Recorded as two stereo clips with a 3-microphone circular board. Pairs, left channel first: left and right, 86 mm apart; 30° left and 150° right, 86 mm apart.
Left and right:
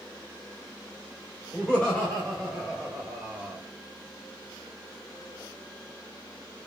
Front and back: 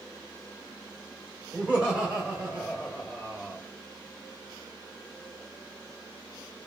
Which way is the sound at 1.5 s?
150° left.